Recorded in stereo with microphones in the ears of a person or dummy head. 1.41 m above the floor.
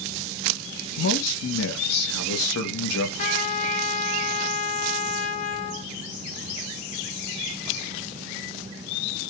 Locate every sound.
1.0 s a man speaking: 85° left, 1.3 m
3.2 s a trumpet: 35° left (ahead or behind), 0.6 m